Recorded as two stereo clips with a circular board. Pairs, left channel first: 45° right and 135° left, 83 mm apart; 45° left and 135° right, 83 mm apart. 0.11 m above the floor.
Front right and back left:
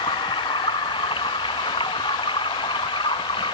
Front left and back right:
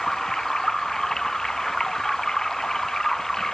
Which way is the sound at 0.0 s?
40° right.